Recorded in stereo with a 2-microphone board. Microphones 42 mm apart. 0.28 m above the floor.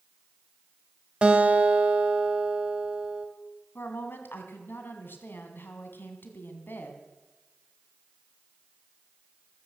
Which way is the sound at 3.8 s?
55° left (ahead or behind).